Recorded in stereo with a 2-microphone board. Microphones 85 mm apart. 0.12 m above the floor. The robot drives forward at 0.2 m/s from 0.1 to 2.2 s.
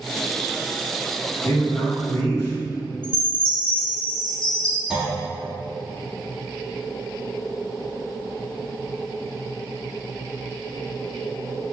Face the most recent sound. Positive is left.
turn(degrees=-10)  # may be behind; listen again after turning